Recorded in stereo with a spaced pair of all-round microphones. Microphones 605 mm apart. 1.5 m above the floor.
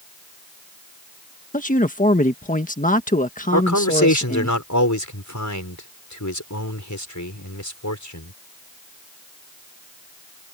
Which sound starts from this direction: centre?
A man speaking, at 1.5 s.